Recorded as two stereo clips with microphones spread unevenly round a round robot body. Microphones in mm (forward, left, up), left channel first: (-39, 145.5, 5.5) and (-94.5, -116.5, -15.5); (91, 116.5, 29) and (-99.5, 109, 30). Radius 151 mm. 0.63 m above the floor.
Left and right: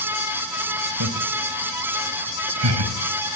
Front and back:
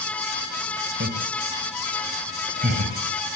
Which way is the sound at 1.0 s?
130° right.